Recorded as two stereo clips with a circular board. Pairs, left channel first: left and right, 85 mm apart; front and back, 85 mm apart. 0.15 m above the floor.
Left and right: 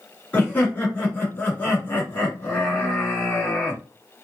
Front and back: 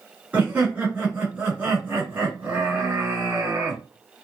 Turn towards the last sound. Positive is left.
turn(degrees=125)